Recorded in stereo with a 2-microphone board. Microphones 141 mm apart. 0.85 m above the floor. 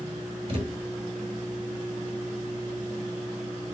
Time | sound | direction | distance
0.5 | a thud | 45° right (ahead or behind) | 1.4 m